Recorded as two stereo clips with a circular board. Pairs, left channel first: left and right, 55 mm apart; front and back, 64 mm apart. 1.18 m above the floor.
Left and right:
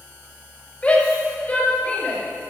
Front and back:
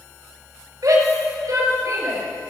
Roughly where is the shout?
Behind left.